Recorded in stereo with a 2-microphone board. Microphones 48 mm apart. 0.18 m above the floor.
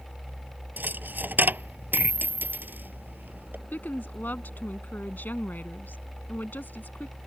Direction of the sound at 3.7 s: 40° left (ahead or behind).